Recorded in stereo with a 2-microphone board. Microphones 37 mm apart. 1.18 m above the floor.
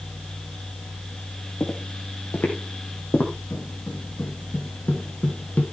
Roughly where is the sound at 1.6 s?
Left.